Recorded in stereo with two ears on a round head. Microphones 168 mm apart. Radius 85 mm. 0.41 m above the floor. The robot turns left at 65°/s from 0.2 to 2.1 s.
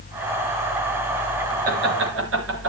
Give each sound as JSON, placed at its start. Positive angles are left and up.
{"t": 1.6, "sound": "laughter", "side_deg": -45, "distance_m": 6.5}